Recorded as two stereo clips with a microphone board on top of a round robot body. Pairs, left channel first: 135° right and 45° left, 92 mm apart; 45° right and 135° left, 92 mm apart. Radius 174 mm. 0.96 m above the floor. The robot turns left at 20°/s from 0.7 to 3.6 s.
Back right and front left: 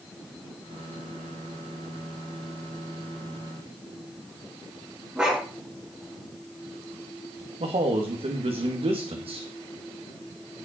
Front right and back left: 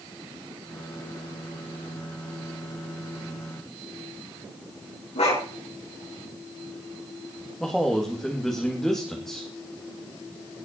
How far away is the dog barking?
About 5 m.